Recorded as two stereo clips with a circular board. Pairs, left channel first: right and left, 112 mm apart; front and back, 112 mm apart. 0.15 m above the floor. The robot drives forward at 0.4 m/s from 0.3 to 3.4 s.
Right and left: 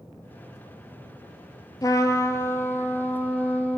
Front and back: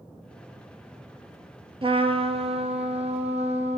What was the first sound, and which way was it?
A trumpet, 145° right.